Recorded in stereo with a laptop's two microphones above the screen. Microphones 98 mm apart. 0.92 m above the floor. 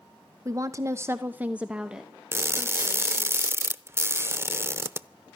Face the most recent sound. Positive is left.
turn(degrees=-25)  # may be behind; listen again after turning